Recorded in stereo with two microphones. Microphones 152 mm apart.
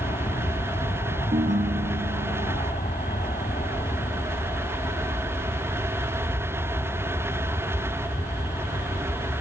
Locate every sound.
0.0 s an aircraft: 60° left (ahead or behind)
1.3 s a ringtone: 65° right (ahead or behind)